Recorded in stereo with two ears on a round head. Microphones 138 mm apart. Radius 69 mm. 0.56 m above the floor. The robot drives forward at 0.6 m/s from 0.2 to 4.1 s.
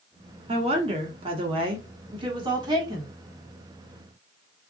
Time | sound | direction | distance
0.5 | a woman speaking | 35° right (ahead or behind) | 1.5 m